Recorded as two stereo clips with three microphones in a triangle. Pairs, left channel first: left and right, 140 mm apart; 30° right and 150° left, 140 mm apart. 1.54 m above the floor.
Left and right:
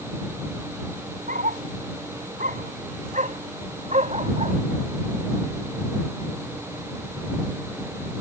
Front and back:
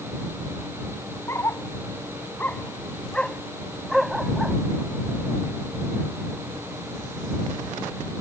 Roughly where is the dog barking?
Right.